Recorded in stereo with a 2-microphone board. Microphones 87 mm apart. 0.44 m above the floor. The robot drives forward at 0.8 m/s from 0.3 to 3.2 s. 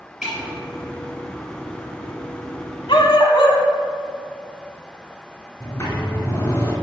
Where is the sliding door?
35° left (ahead or behind), 2 m.